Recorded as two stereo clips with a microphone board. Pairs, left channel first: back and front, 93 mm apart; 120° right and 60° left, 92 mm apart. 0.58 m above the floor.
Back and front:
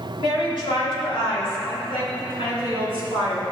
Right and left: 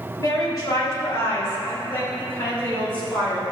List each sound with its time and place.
0.2 s a woman speaking: 165° right, 3 m; by 3.5 s 165° left, 5.5 m